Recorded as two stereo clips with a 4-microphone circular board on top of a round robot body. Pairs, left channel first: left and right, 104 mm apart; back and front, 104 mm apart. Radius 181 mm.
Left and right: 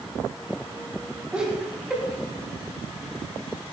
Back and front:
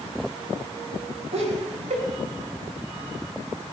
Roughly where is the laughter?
Ahead.